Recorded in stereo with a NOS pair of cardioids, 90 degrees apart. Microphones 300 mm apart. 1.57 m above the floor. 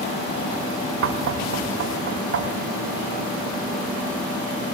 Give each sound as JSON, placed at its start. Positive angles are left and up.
{"t": 1.0, "sound": "knocking", "azimuth_deg": -45, "distance_m": 3.0}